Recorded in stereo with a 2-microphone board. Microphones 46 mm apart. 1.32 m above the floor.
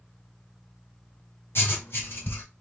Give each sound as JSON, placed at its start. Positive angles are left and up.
{"t": 1.6, "sound": "writing", "side_deg": 60, "distance_m": 2.0}